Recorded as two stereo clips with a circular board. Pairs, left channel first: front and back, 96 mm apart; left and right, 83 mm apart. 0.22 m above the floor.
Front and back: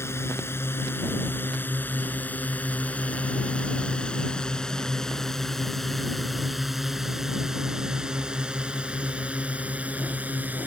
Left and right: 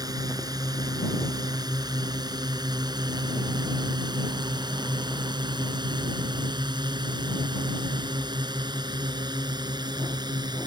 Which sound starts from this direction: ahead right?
A drone, at 0.0 s.